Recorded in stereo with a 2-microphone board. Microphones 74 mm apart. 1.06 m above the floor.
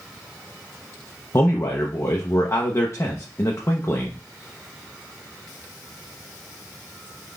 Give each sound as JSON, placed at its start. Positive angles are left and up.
{"t": 1.3, "sound": "a man speaking", "side_deg": 40, "distance_m": 0.6}